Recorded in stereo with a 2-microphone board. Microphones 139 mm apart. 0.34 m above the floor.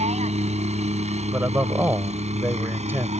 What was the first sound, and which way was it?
A helicopter, 55° right (ahead or behind).